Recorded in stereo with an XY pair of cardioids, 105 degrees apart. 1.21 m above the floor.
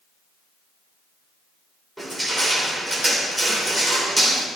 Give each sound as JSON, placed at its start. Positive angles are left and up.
{"t": 2.0, "sound": "crushing", "azimuth_deg": -15, "distance_m": 3.0}